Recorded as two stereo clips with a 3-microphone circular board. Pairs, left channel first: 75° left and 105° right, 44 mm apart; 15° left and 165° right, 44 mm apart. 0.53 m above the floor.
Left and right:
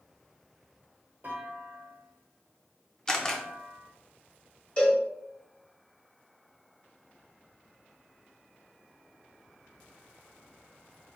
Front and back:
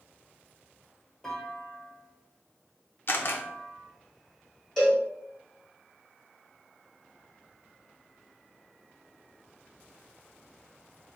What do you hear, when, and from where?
1.2 s a clunk: 65° right, 1.0 m
3.1 s a camera shutter: straight ahead, 0.5 m
4.8 s a cowbell: 80° left, 1.5 m